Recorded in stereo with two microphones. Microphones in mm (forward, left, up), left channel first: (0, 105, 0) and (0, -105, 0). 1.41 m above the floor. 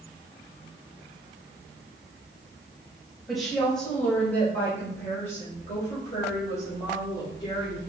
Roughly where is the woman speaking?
Centre.